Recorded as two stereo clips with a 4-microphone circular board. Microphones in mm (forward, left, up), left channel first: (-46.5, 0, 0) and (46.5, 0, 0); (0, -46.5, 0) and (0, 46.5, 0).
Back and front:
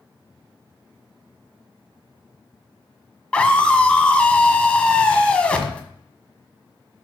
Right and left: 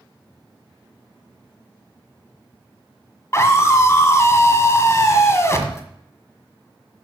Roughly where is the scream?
Right.